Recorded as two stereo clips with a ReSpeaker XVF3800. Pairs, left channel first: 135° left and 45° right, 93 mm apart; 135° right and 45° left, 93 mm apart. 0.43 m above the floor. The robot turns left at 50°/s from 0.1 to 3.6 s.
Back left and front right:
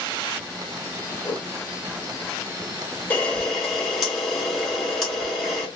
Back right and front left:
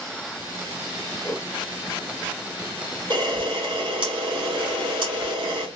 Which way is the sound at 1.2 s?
170° left.